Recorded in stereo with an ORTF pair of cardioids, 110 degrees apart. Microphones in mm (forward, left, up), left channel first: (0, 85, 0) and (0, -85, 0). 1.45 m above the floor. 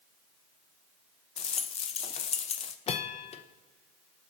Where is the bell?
40° left, 1.2 m.